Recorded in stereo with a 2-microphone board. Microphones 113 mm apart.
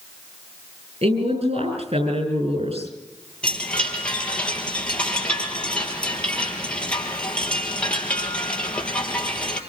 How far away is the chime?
About 3.5 m.